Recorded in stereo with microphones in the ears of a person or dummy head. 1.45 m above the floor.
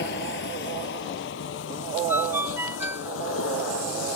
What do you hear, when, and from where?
0.0 s a vehicle: 65° left (ahead or behind); by 4.2 s 85° left
2.1 s a ringtone: 10° right (ahead or behind)